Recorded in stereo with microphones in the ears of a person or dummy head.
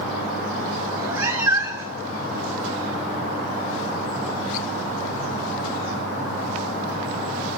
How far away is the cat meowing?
About 1.8 m.